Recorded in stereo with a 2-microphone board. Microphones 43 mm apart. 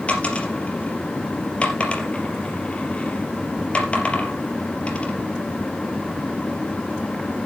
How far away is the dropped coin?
About 3.5 m.